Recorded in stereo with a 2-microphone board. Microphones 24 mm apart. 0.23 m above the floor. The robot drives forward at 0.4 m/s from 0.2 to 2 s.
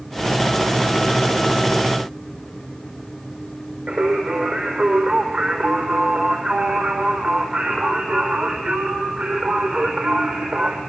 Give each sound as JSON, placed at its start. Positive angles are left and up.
{"t": 3.9, "sound": "singing", "side_deg": -80, "distance_m": 4.5}